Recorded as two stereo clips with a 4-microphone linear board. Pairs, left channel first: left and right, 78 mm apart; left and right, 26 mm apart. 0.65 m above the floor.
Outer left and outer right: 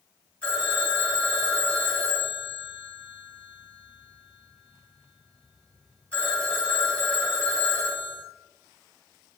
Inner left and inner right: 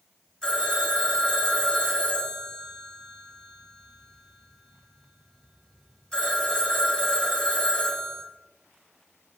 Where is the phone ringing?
15° left (ahead or behind), 1.7 m.